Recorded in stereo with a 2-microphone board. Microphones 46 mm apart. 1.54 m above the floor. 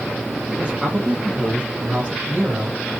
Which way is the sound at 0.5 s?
25° right (ahead or behind).